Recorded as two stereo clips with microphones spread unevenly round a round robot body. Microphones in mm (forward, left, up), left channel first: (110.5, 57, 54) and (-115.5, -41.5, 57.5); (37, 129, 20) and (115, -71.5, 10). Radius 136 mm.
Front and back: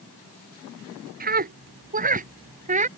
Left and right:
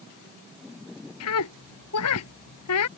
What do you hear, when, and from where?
1.2 s a scream: 150° left; by 2.9 s 140° left